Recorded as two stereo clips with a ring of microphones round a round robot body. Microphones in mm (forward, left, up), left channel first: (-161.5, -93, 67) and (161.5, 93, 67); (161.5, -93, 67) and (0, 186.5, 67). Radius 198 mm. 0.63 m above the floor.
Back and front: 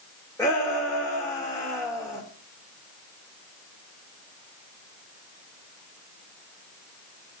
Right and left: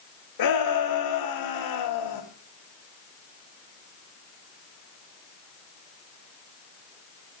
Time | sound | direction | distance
0.4 | a shout | 65° right | 2.5 m